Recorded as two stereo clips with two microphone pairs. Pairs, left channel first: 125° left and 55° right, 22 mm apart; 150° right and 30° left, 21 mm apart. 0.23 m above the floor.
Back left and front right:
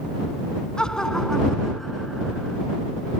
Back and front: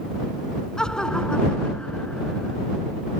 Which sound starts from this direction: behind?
Laughter, at 0.8 s.